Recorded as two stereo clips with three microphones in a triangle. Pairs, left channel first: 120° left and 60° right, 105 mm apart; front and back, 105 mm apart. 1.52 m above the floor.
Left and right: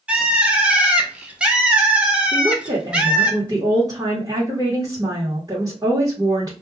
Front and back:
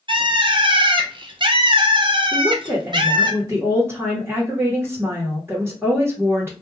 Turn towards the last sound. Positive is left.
turn(degrees=-110)